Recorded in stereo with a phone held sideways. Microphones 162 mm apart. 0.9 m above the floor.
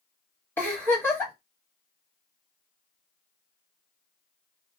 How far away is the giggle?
About 2.0 m.